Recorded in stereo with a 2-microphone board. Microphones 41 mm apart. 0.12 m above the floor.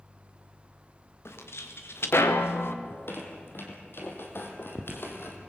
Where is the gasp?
I don't hear a gasp.